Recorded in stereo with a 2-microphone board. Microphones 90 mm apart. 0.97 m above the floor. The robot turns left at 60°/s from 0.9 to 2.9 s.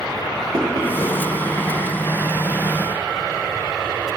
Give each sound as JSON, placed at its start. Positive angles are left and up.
{"t": 0.5, "sound": "knocking", "side_deg": -40, "distance_m": 1.3}